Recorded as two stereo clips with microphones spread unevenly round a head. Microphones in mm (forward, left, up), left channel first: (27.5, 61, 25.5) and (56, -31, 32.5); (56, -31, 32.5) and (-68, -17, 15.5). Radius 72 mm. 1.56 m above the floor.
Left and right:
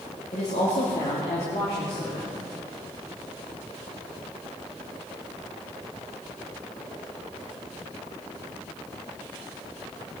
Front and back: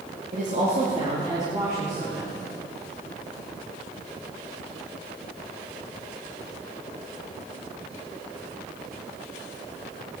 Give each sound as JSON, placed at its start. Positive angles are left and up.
{"t": 0.3, "sound": "a woman speaking", "azimuth_deg": 140, "distance_m": 2.0}